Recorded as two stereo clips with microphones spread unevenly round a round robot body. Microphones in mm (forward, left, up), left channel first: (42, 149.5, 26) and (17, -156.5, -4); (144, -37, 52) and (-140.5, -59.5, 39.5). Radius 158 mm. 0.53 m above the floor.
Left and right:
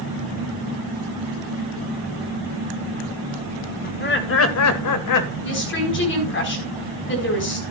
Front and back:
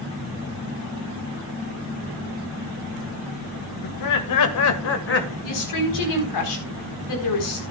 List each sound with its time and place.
3.8 s laughter: 20° left, 2.5 m; by 5.3 s 65° left, 2.0 m
5.4 s a woman speaking: 30° left, 4.5 m